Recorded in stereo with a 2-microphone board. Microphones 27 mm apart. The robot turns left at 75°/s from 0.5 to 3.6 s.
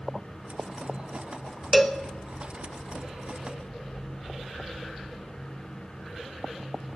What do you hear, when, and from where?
1.7 s a cowbell: 5° right (ahead or behind), 0.6 m; by 2.0 s 10° left (ahead or behind), 0.6 m